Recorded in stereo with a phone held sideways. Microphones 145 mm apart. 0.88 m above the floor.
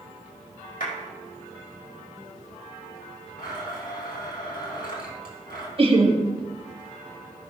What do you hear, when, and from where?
0.8 s a clap: 80° left, 4 m
3.4 s a blender: 85° left, 3 m
5.8 s laughter: 40° right (ahead or behind), 1.5 m